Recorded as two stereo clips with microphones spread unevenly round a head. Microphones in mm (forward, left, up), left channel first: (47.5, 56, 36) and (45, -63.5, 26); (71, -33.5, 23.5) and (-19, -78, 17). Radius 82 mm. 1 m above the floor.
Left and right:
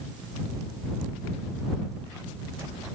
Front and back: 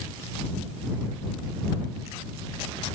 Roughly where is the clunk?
I don't hear a clunk.